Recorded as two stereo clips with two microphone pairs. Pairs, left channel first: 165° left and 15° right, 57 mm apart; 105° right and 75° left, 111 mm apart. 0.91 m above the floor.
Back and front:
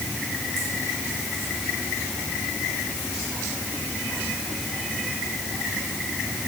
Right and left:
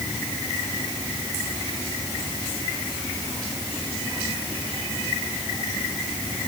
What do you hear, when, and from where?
Only background noise.